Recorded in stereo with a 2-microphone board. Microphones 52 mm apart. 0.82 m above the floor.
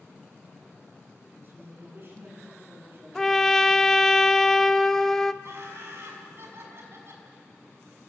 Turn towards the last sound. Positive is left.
turn(degrees=-55)  # may be behind; listen again after turning